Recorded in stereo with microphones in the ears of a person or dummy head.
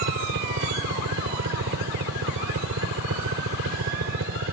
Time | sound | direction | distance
0.0 | a helicopter | 65° right (ahead or behind) | ?